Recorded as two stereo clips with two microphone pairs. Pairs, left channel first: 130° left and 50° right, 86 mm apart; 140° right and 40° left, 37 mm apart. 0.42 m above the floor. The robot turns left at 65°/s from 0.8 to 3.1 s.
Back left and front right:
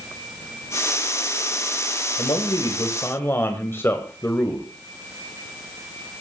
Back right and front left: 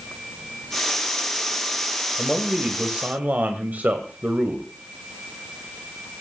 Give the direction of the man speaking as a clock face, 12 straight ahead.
8 o'clock.